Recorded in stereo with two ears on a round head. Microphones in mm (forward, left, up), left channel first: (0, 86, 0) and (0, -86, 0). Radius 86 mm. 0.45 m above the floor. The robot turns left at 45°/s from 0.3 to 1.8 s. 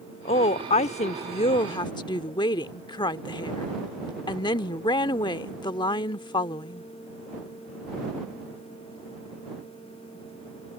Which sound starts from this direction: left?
A woman speaking, at 0.2 s.